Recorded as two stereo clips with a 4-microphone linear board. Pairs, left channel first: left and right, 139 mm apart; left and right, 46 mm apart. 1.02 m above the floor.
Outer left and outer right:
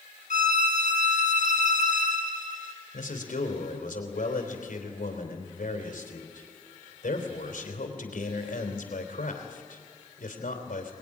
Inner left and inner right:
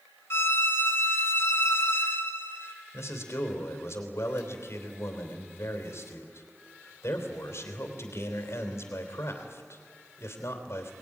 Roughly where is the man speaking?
Left.